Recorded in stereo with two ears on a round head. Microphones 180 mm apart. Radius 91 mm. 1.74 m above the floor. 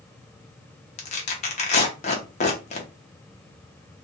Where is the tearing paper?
35° left (ahead or behind), 0.7 m.